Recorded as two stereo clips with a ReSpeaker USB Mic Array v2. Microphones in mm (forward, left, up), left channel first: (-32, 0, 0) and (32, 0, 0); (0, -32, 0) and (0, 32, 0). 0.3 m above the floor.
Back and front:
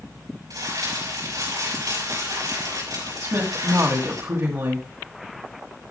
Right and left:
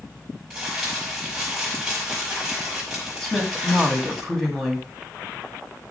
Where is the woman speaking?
10° right, 2.5 m.